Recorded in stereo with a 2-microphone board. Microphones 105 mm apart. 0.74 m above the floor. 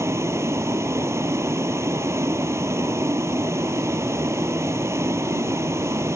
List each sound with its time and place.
0.0 s a vehicle: 25° right (ahead or behind)